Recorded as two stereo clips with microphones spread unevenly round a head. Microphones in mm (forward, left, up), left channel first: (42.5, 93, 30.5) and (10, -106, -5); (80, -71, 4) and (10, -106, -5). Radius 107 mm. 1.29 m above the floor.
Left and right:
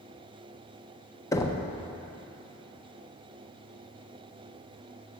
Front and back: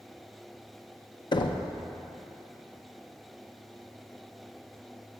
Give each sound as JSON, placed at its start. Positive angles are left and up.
{"t": 1.3, "sound": "knocking", "azimuth_deg": 10, "distance_m": 0.5}